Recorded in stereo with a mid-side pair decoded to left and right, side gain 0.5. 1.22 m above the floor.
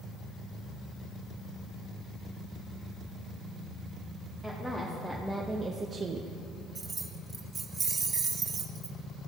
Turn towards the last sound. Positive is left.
turn(degrees=-30)